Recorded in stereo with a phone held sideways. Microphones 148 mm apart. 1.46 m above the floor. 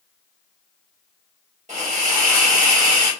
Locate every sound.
1.7 s a hiss: 50° right (ahead or behind), 1.4 m